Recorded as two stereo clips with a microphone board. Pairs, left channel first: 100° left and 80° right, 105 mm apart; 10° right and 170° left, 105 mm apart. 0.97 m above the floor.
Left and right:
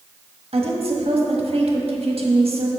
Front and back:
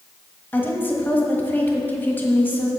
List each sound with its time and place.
0.5 s a woman speaking: 80° right, 1.3 m